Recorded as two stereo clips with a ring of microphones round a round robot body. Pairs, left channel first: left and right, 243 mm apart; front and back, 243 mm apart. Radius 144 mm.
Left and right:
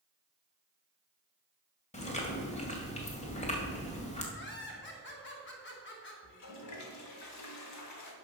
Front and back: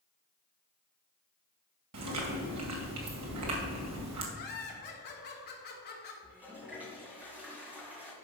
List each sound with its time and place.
1.9 s chewing: 155° left, 2 m
4.3 s laughter: 50° left, 2.5 m
6.2 s a toilet flushing: 95° left, 1.7 m